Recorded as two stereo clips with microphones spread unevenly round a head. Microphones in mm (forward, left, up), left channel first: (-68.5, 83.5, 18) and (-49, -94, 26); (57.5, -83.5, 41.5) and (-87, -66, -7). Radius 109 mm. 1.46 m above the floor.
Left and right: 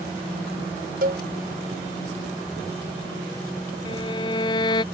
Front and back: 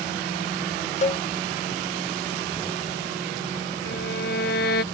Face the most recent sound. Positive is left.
turn(degrees=25)